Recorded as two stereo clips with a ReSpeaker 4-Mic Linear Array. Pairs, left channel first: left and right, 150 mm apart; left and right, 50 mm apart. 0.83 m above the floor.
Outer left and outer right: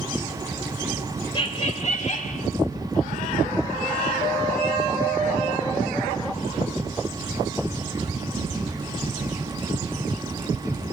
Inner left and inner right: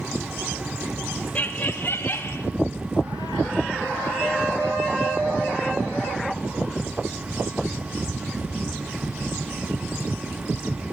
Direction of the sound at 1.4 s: 35° left (ahead or behind).